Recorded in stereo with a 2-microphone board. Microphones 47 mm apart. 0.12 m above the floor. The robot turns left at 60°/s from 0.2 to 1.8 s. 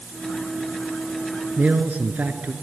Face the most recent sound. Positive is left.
turn(degrees=-40)  # may be behind; listen again after turning